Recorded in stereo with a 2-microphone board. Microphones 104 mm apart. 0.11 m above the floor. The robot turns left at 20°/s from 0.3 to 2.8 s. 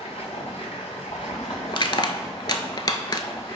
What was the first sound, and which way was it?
Running water, 95° left.